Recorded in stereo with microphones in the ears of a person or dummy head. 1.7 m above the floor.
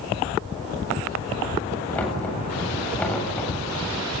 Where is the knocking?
15° left (ahead or behind), 8 m.